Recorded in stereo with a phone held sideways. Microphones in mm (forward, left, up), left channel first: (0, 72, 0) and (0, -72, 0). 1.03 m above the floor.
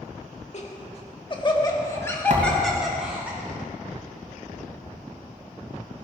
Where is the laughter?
50° left (ahead or behind), 1.6 m; by 3.3 s 10° right (ahead or behind), 1.6 m.